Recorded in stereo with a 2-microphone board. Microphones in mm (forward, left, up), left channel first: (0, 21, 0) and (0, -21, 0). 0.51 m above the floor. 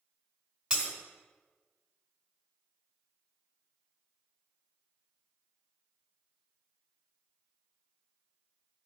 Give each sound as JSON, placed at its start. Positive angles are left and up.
{"t": 0.7, "sound": "breaking glass", "side_deg": -25, "distance_m": 1.7}